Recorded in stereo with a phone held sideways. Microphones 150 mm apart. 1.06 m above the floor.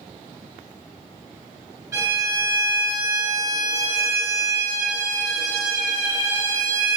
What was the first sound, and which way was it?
A violin, 20° right (ahead or behind).